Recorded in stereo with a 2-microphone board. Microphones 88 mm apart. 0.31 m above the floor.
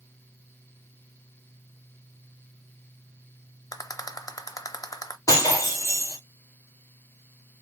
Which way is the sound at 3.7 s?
40° left (ahead or behind).